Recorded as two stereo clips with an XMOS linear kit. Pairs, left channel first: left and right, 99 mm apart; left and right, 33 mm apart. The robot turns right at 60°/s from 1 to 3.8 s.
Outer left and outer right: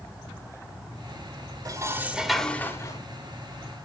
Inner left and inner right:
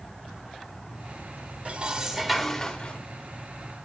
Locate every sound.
1.6 s dishes clattering: 40° right, 1.2 m; by 3.0 s 45° left, 1.2 m